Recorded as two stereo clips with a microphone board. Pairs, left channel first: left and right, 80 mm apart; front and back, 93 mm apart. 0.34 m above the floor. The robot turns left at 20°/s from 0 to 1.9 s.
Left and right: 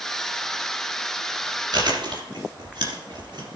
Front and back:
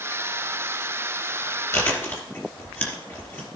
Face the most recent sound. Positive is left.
turn(degrees=-65)